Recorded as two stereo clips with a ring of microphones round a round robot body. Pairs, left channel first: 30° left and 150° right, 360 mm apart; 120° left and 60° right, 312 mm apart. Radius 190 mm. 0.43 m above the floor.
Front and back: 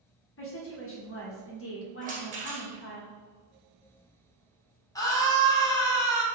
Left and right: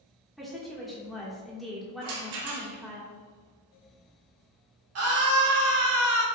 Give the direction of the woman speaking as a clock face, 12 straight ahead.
11 o'clock.